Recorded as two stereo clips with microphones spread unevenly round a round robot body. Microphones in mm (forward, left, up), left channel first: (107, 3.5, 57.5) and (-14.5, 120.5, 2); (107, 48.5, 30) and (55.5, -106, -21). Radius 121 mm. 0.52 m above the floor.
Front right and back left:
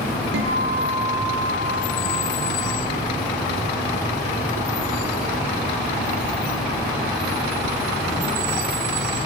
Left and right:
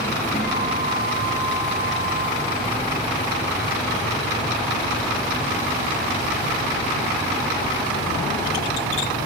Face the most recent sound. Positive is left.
turn(degrees=135)